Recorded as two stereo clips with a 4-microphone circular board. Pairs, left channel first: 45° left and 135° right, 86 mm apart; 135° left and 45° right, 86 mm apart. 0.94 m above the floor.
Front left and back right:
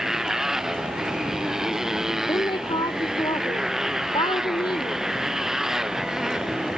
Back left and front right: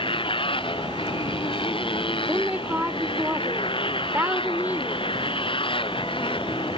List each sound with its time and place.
0.0 s a motorcycle: 140° left
2.3 s a woman speaking: 25° left